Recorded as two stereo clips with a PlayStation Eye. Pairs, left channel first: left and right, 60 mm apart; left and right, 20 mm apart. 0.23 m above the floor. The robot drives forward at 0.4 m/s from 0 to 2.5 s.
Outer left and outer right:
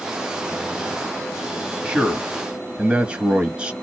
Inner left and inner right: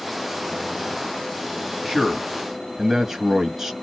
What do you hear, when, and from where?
1.9 s a man speaking: 15° right (ahead or behind), 1.1 m; by 3.7 s 20° right (ahead or behind), 1.0 m